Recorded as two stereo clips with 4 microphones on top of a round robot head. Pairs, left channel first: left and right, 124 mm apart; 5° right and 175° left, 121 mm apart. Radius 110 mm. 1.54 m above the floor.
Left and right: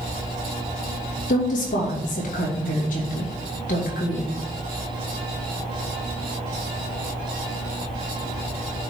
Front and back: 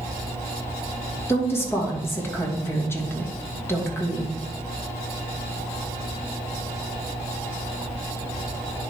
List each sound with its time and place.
1.3 s a woman speaking: 65° left, 2.5 m